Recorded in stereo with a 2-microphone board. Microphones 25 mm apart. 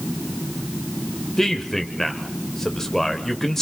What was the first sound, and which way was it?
A man speaking, 15° left (ahead or behind).